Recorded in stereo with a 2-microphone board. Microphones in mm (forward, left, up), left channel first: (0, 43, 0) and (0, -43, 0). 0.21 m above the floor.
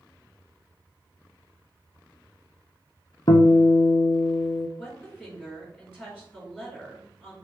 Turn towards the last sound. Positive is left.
turn(degrees=-10)  # may be behind; listen again after turning